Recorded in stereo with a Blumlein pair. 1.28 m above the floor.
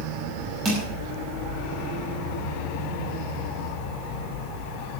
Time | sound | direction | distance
0.7 | crushing | 25° right | 5 m